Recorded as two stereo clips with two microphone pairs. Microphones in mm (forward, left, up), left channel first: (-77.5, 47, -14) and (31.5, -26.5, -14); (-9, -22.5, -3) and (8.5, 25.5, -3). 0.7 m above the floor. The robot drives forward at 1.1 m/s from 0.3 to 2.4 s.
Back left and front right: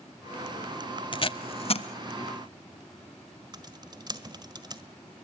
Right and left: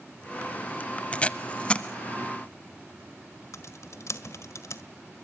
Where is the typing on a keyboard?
90° right, 1.5 m.